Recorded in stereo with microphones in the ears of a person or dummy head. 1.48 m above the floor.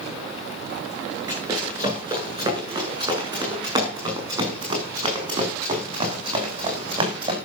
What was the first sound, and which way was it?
Running footsteps, 25° right (ahead or behind).